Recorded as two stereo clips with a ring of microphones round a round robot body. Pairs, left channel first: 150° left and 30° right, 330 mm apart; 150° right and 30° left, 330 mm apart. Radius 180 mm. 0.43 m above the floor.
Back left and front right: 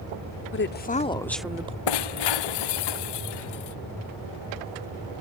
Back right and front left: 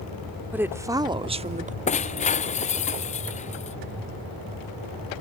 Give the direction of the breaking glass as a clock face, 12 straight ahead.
7 o'clock.